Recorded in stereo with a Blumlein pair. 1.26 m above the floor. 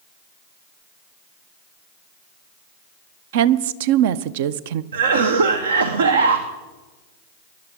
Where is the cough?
65° right, 0.8 m.